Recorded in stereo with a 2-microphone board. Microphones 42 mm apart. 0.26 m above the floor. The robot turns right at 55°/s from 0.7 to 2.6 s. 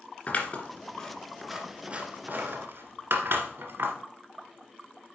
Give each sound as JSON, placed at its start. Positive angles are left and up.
{"t": 0.3, "sound": "scissors", "side_deg": 30, "distance_m": 1.6}